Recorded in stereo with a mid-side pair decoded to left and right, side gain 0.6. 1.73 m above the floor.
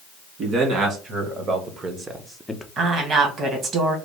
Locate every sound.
0.4 s a man speaking: 55° right, 2.5 m; by 2.7 s 20° left, 0.6 m
2.8 s a woman speaking: 45° right, 1.6 m